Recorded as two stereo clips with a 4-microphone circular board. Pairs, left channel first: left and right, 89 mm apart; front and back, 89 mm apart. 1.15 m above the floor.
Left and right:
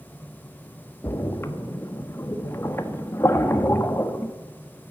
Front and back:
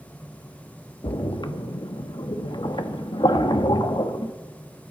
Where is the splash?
30° left, 1.2 m.